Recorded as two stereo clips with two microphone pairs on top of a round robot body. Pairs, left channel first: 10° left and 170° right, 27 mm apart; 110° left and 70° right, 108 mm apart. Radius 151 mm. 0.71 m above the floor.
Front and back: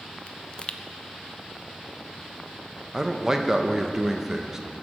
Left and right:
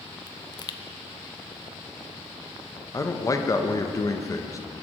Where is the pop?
65° left, 0.6 m.